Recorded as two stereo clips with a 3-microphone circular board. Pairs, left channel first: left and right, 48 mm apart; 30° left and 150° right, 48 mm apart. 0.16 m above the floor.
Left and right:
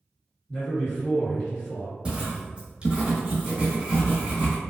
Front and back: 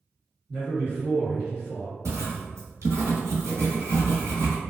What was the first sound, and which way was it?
A man speaking, 150° left.